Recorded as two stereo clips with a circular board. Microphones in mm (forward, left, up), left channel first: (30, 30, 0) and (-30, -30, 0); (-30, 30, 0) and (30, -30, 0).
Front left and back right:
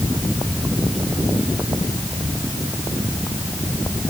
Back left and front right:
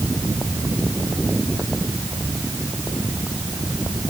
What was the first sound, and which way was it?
Only background noise.